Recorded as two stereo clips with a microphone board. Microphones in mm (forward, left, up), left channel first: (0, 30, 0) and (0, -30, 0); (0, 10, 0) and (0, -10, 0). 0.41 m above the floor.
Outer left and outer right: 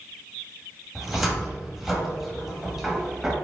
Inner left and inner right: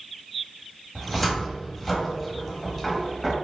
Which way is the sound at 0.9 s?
5° right (ahead or behind).